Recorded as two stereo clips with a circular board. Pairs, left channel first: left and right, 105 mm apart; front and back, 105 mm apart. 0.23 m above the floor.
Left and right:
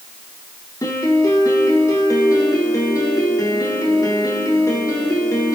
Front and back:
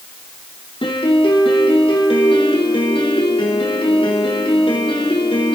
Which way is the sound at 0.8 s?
35° left.